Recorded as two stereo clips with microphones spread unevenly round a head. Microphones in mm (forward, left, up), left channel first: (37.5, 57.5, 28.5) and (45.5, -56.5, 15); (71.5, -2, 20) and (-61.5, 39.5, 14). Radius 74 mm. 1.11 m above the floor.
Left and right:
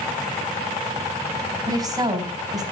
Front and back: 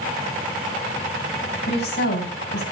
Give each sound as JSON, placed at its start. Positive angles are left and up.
{"t": 1.7, "sound": "a woman speaking", "azimuth_deg": -30, "distance_m": 4.5}